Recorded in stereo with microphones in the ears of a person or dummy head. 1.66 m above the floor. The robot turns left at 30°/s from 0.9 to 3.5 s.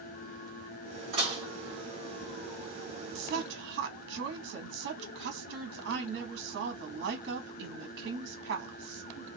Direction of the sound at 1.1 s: 40° right (ahead or behind).